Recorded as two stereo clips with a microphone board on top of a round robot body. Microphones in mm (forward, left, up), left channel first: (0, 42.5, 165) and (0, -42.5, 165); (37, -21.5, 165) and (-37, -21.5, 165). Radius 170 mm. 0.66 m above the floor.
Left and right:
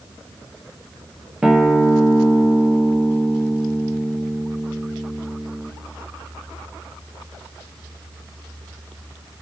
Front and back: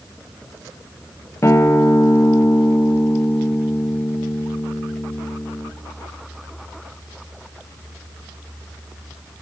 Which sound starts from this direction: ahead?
A guitar, at 1.4 s.